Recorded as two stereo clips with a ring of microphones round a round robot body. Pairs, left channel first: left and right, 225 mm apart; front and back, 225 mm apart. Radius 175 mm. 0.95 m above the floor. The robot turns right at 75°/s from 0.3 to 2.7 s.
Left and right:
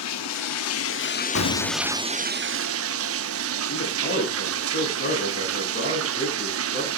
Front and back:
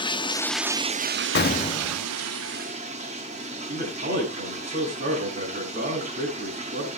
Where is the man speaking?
125° left, 8.5 m.